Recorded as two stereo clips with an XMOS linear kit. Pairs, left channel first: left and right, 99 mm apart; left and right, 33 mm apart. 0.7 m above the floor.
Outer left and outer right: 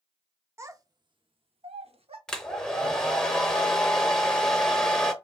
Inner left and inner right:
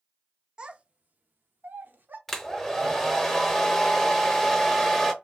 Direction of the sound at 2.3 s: 5° left (ahead or behind).